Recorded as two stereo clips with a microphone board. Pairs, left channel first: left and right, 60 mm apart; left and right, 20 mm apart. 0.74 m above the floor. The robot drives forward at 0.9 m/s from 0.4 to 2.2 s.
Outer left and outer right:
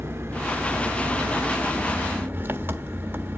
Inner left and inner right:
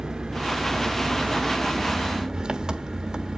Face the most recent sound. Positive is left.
turn(degrees=-40)  # may be behind; listen again after turning